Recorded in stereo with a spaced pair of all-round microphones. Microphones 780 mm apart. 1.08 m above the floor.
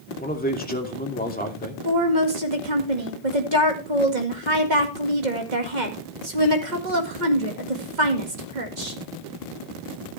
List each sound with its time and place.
0.2 s a man speaking: 10° left (ahead or behind), 2.5 m
1.9 s a woman speaking: 65° right (ahead or behind), 2 m